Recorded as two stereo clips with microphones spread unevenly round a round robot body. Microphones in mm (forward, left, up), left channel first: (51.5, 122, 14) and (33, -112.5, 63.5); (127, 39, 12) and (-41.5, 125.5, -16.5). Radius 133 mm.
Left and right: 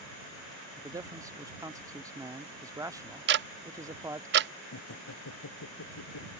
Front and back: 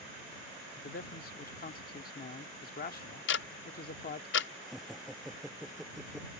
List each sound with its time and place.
0.8 s a man speaking: 10° right
3.3 s ticking: 50° right
4.6 s laughter: 65° left